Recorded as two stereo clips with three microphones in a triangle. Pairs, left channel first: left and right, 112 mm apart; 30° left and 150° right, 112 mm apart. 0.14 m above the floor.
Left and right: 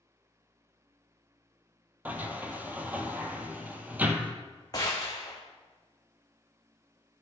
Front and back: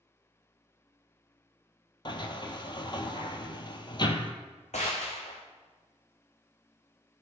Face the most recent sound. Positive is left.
turn(degrees=30)